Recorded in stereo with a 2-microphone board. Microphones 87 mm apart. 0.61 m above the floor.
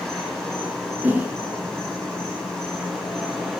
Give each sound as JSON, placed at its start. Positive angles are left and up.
{"t": 0.0, "sound": "an insect", "side_deg": 5, "distance_m": 4.5}
{"t": 1.0, "sound": "a whoosh", "side_deg": -20, "distance_m": 2.5}